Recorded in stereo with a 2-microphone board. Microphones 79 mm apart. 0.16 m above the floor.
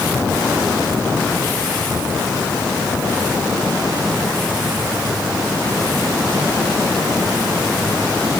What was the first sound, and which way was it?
Only background noise.